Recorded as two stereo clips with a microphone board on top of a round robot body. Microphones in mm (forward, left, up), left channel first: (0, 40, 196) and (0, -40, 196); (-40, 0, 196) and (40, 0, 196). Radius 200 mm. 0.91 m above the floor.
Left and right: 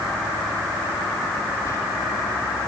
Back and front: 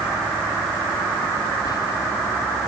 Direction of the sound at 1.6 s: 145° left.